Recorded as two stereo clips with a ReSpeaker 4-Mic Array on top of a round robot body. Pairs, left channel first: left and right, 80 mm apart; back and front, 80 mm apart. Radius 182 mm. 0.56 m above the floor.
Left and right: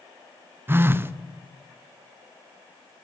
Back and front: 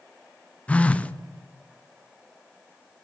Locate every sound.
0.7 s a phone buzzing: 120° right, 0.6 m